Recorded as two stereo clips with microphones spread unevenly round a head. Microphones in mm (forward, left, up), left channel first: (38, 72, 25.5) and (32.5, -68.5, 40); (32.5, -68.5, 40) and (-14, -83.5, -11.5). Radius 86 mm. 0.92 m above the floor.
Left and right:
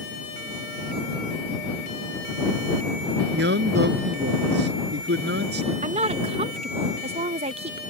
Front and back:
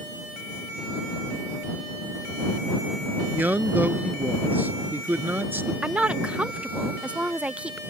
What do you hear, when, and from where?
3.3 s a man speaking: 105° right; by 5.7 s 110° right
5.8 s a woman speaking: 140° right